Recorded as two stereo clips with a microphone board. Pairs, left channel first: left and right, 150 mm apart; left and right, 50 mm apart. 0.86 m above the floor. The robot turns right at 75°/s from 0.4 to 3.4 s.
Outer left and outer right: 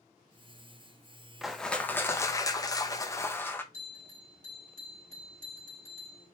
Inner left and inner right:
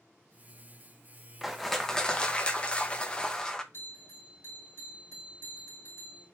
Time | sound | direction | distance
1.4 | crushing | centre (ahead or behind) | 0.6 m
3.7 | a bell | 55° left (ahead or behind) | 3 m